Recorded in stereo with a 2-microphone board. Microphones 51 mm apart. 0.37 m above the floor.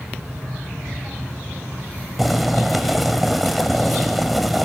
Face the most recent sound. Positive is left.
turn(degrees=0)  # may be behind; listen again after turning